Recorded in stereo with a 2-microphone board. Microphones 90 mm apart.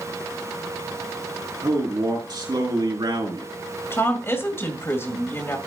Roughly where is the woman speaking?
Left.